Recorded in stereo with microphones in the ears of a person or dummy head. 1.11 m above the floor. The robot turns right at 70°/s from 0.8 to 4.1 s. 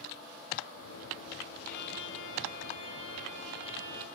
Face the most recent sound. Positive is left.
turn(degrees=-135)